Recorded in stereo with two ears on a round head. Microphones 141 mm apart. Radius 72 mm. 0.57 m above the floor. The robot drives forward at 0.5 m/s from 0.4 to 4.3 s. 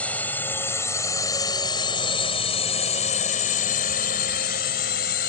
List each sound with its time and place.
0.0 s a drone: 10° left (ahead or behind); by 5.3 s 65° left (ahead or behind)